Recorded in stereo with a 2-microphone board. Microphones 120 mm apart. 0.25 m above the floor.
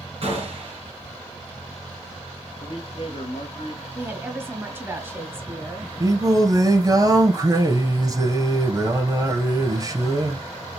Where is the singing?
30° right (ahead or behind), 1.5 m.